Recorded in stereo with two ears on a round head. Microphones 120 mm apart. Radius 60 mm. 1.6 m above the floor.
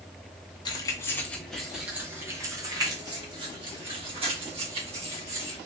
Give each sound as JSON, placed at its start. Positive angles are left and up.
{"t": 0.7, "sound": "keys jangling", "side_deg": 30, "distance_m": 0.8}